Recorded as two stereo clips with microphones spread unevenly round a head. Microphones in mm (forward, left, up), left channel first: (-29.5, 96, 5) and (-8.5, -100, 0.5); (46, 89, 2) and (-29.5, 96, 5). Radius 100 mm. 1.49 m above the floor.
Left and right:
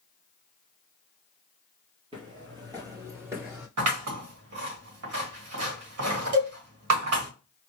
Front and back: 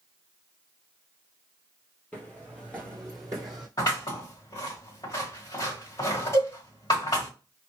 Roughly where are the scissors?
Right.